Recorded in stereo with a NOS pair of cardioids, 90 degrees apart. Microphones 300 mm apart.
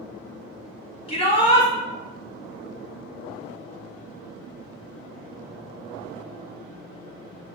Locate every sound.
1.1 s a shout: 20° left, 1.5 m